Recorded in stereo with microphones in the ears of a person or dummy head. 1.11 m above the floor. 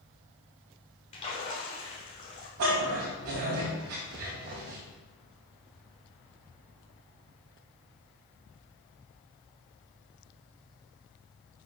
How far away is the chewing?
I don't hear chewing.